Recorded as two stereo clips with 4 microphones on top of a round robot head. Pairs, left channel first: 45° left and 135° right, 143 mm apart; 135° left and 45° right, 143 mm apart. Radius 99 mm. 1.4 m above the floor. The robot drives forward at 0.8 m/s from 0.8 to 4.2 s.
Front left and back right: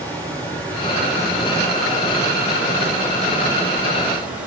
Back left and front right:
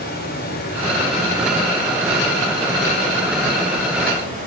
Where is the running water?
125° left, 4.5 m; by 4.5 s 145° left, 6.5 m.